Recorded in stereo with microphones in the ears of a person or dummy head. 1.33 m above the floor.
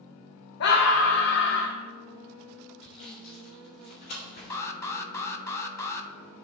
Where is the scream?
65° left (ahead or behind), 0.9 m.